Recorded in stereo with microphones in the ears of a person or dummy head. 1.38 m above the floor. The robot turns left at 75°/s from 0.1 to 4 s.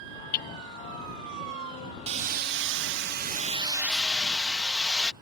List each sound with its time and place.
0.3 s hammering: 50° left (ahead or behind); by 0.5 s 40° left (ahead or behind)
2.1 s hammering: 40° right; by 5.1 s 175° left